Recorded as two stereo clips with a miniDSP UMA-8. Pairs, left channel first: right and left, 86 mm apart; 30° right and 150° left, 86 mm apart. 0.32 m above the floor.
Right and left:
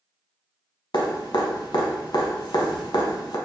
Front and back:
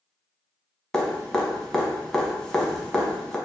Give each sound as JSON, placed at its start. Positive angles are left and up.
{"t": 0.9, "sound": "dripping", "azimuth_deg": -115, "distance_m": 0.7}